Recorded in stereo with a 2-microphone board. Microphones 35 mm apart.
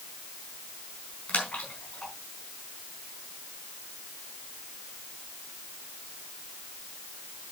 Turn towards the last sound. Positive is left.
turn(degrees=45)  # may be behind; listen again after turning